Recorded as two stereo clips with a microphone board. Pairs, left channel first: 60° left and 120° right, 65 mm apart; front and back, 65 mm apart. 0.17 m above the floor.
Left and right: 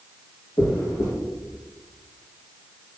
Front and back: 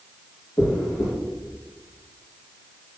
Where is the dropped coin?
35° left, 2.5 m.